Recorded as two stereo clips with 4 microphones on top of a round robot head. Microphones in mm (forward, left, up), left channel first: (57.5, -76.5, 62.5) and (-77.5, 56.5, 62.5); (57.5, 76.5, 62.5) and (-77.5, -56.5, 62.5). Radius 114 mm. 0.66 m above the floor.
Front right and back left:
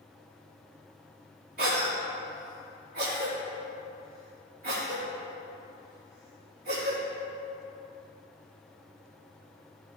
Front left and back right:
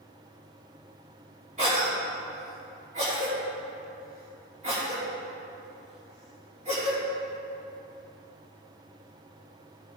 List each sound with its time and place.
1.6 s a cough: 175° left, 2.5 m